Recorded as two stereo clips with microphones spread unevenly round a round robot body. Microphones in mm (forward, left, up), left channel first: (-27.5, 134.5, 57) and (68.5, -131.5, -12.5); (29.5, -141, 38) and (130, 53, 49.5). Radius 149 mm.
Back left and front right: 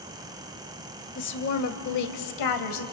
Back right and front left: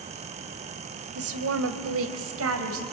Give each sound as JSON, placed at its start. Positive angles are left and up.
{"t": 1.1, "sound": "a woman speaking", "azimuth_deg": 55, "distance_m": 2.5}